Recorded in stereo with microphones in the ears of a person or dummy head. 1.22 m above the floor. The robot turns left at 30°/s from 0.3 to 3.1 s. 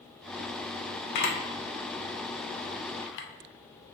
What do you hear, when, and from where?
1.1 s a camera shutter: 60° left (ahead or behind), 0.6 m; by 3.3 s 65° left (ahead or behind), 0.6 m